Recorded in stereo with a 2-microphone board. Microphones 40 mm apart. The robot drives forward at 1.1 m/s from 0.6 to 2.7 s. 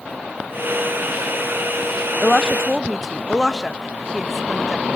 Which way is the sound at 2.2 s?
10° right (ahead or behind).